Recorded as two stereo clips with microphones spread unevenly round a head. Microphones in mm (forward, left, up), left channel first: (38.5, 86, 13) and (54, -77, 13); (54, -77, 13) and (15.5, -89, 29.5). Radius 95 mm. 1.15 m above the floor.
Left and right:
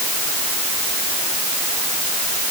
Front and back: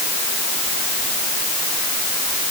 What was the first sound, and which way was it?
Only background noise.